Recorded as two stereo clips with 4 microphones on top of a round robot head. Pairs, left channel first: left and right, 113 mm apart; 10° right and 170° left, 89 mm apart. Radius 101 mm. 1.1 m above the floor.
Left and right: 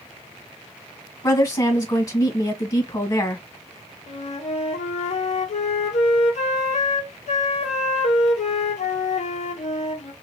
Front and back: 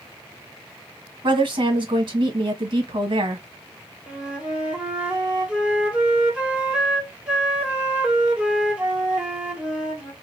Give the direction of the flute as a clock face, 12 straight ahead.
9 o'clock.